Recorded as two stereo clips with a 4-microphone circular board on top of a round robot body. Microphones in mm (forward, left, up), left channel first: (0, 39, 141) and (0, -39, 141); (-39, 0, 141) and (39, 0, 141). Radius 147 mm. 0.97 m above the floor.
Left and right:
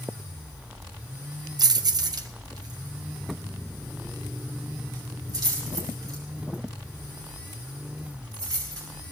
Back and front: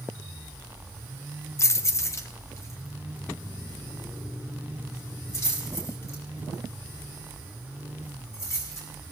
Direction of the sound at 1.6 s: 125° right.